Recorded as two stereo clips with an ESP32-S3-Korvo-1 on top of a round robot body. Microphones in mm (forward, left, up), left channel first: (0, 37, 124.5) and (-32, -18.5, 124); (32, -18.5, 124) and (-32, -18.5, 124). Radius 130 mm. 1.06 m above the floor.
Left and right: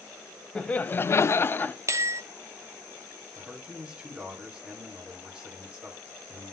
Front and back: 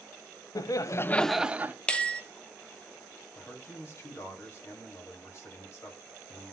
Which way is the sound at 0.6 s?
15° right.